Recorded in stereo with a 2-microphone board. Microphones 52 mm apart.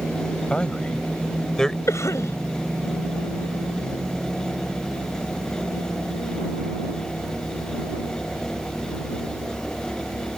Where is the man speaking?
20° left (ahead or behind); by 1.8 s 10° left (ahead or behind).